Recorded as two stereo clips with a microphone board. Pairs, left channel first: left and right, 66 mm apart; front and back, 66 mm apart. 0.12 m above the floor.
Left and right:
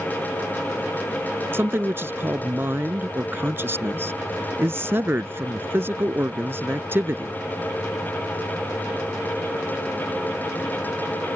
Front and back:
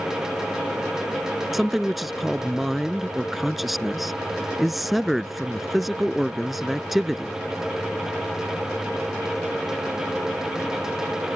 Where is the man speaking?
95° right.